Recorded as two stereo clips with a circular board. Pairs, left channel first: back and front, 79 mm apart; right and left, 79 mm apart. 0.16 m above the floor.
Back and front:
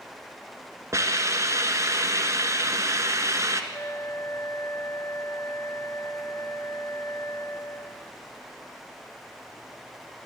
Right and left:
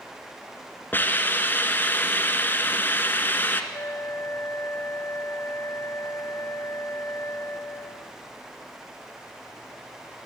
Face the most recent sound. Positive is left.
turn(degrees=-140)